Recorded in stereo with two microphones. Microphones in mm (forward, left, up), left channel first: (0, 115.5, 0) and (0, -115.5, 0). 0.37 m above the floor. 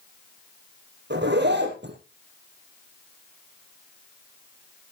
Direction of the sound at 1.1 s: 50° right (ahead or behind).